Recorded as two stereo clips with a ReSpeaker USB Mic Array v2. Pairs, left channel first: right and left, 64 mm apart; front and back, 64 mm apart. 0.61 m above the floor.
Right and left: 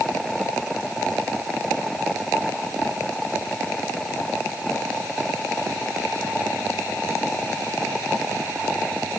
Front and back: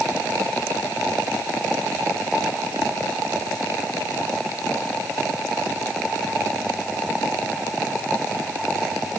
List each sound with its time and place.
Only background noise.